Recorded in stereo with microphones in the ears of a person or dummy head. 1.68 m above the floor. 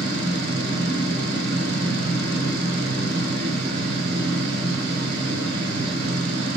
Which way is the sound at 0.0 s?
60° right (ahead or behind).